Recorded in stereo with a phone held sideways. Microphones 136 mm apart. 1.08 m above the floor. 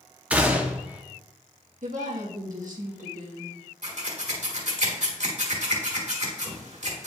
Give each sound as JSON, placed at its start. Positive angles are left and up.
{"t": 0.3, "sound": "a gunshot", "side_deg": -10, "distance_m": 0.8}
{"t": 1.8, "sound": "a woman speaking", "side_deg": -70, "distance_m": 1.3}
{"t": 3.8, "sound": "scissors", "side_deg": -60, "distance_m": 1.5}